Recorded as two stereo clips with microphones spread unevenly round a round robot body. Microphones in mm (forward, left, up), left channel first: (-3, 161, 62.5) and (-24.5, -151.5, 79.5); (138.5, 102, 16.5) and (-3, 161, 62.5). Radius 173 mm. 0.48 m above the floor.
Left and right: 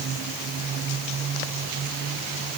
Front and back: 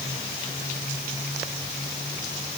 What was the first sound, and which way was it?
Only background noise.